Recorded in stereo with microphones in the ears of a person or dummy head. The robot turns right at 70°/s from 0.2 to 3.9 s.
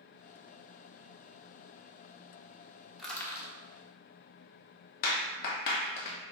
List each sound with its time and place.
3.0 s crushing: 5° right (ahead or behind), 0.9 m; by 3.5 s 35° left (ahead or behind), 0.9 m
5.0 s a clap: 55° left (ahead or behind), 0.9 m